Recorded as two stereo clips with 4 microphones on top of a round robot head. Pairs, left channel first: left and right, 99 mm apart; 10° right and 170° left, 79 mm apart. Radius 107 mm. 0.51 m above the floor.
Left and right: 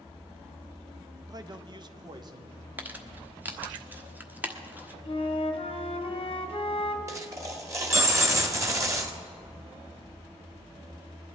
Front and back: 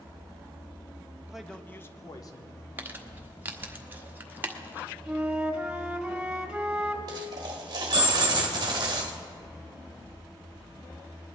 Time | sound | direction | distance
1.3 | a man speaking | 115° right | 0.8 m
2.8 | crumpling | 150° right | 1.3 m
5.0 | a flute | 90° left | 1.3 m
7.1 | a dropped coin | 150° right | 1.5 m